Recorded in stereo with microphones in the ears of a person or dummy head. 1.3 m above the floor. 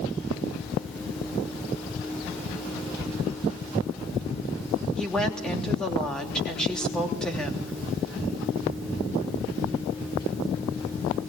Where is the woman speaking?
5° left (ahead or behind), 3 m.